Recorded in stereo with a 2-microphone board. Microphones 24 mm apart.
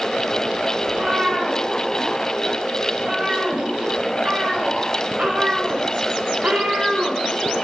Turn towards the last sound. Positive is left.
turn(degrees=-70)  # may be behind; listen again after turning